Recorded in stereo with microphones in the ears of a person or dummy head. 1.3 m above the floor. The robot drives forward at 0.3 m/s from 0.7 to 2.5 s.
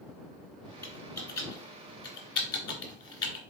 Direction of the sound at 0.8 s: 20° left (ahead or behind).